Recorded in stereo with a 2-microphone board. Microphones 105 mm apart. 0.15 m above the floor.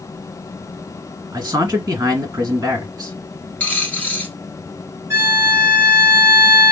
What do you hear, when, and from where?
1.3 s a man speaking: 30° right (ahead or behind), 1.6 m
3.6 s a dropped coin: 15° left (ahead or behind), 1.2 m
5.1 s a violin: 25° right (ahead or behind), 1.2 m